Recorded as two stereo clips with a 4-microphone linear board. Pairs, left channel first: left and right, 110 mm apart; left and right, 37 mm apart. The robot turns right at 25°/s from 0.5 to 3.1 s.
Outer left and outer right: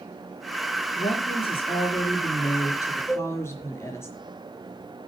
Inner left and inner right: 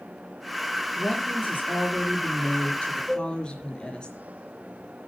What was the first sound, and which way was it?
A woman speaking, 100° left.